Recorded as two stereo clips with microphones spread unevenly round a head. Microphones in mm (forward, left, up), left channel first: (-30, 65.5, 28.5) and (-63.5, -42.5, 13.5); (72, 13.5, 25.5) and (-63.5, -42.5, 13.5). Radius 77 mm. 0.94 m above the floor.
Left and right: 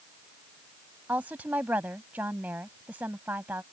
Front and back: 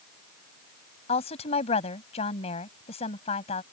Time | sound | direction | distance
1.1 | a woman speaking | 25° right | ?